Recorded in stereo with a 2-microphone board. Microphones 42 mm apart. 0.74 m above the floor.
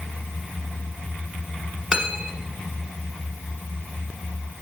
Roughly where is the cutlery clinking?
Right.